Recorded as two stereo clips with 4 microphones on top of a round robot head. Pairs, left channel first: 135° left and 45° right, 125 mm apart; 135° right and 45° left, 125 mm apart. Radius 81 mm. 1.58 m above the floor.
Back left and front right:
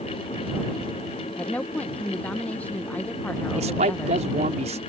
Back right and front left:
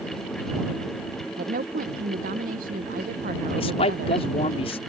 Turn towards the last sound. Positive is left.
turn(degrees=-90)